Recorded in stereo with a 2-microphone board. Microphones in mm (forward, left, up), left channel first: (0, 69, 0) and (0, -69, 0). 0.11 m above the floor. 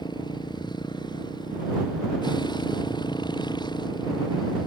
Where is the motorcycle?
35° left (ahead or behind).